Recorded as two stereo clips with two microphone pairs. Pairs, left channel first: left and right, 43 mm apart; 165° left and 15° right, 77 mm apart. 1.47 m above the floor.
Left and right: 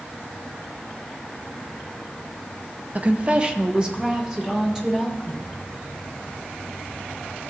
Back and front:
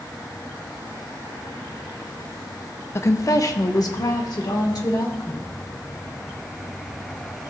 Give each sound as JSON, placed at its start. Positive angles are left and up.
{"t": 3.0, "sound": "a woman speaking", "azimuth_deg": -140, "distance_m": 0.6}